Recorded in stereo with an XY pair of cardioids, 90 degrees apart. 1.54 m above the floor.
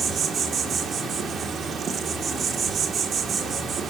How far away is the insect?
About 1.9 m.